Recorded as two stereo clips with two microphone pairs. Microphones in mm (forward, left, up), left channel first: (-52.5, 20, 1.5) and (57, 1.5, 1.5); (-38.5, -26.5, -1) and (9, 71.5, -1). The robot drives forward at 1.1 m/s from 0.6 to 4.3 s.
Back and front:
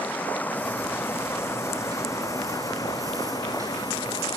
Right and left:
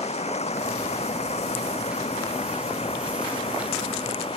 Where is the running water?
115° right; by 4.4 s 140° right.